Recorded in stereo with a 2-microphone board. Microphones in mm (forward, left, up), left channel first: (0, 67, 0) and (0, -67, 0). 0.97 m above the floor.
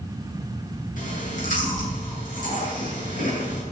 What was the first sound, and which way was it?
Chewing, 75° left (ahead or behind).